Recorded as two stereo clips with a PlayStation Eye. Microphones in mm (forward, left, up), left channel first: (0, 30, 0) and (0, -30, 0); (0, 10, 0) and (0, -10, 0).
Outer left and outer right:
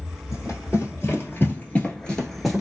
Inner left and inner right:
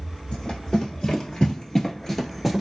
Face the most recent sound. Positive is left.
turn(degrees=-5)  # may be behind; listen again after turning